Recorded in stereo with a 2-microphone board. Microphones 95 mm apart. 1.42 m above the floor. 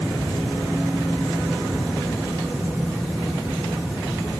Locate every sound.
Only background noise.